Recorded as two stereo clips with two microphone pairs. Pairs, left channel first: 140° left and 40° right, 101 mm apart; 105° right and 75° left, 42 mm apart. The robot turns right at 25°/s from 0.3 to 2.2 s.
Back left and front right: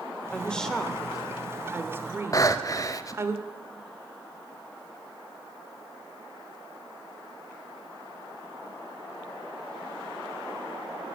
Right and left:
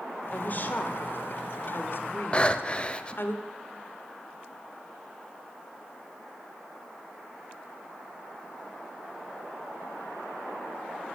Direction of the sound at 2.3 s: 165° right.